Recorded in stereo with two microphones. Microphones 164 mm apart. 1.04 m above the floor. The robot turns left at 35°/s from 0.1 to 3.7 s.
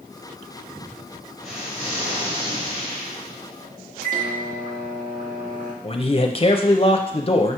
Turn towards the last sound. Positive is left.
turn(degrees=35)  # may be behind; listen again after turning